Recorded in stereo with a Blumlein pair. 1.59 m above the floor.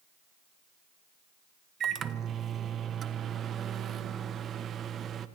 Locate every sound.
1.8 s a microwave: 25° right, 1.2 m